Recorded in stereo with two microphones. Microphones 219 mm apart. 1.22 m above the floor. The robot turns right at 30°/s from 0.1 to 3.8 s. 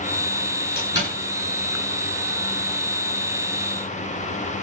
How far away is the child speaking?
No child speaking in this recording.